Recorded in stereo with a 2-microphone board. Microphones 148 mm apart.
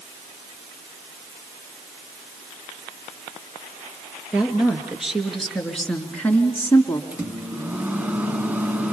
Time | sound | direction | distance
4.3 | a woman speaking | 5° right (ahead or behind) | 4 m
7.1 | a microwave | 10° right (ahead or behind) | 1.8 m